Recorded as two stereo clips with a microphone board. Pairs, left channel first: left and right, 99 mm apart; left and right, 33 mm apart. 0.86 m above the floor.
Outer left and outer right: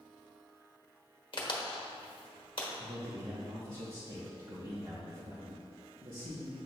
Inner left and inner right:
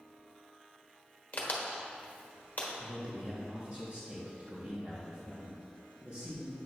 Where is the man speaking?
50° right (ahead or behind), 1.5 m.